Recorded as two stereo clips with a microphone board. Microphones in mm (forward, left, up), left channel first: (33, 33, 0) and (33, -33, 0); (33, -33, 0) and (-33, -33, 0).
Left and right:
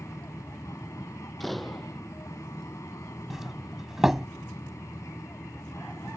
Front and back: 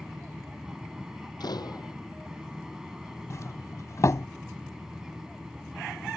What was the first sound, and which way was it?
An aircraft, 100° left.